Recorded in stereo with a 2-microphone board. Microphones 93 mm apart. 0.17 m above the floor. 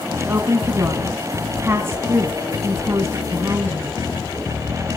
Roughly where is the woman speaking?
Right.